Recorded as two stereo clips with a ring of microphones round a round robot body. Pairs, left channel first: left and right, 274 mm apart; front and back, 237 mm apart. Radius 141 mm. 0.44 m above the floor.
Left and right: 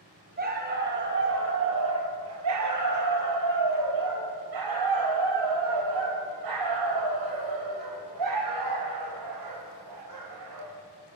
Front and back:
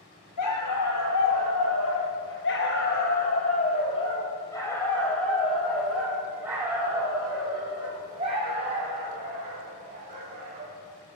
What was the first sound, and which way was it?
A dog barking, 30° right.